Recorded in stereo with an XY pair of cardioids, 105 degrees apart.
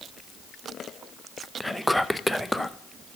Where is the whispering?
5° left, 0.5 m.